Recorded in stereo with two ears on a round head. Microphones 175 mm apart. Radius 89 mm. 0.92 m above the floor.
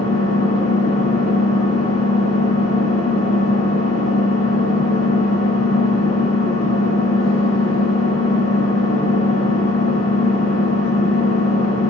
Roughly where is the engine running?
Left.